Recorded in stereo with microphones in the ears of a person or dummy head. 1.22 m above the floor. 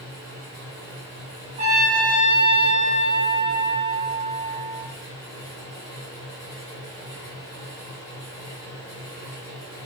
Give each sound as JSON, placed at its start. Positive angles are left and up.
{"t": 0.0, "sound": "a fan", "side_deg": 30, "distance_m": 1.4}
{"t": 1.6, "sound": "a trumpet", "side_deg": -45, "distance_m": 0.8}